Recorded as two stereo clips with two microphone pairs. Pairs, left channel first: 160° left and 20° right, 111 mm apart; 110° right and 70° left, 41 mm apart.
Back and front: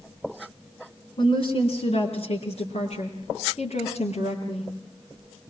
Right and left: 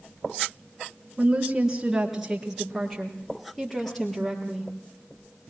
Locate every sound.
1.2 s a woman speaking: 135° left, 2.5 m; by 4.7 s 175° left, 5.5 m